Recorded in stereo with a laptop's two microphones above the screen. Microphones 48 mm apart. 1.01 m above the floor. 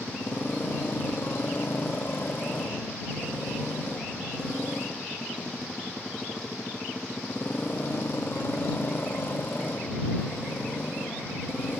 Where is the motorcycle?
45° left (ahead or behind).